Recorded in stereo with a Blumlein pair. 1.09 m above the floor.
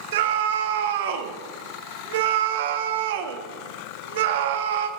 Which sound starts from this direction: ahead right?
A scream, at 0.1 s.